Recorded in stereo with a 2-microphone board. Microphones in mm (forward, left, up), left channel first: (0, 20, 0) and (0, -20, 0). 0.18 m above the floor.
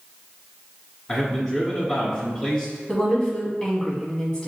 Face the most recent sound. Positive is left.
turn(degrees=20)  # may be behind; listen again after turning